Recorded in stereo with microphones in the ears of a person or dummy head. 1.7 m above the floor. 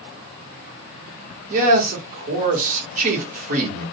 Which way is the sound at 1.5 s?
40° right (ahead or behind).